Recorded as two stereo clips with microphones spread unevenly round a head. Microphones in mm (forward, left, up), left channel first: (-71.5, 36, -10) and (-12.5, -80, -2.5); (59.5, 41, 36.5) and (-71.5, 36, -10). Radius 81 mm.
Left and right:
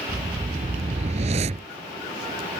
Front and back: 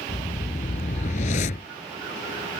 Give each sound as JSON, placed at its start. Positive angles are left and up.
{"t": 0.1, "sound": "a whoosh", "azimuth_deg": -20}